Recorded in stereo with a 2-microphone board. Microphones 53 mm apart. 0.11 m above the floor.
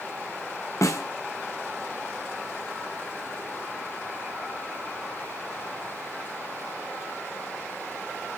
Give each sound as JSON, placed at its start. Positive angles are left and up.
{"t": 0.8, "sound": "a snare drum", "side_deg": 80, "distance_m": 1.4}